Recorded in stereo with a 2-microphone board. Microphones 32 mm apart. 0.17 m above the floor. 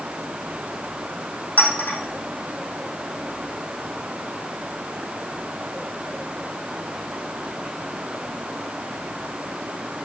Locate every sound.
1.6 s a clink: 60° left (ahead or behind), 5 m